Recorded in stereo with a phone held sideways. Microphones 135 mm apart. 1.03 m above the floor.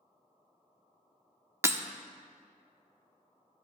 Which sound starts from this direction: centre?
Breaking glass, at 1.6 s.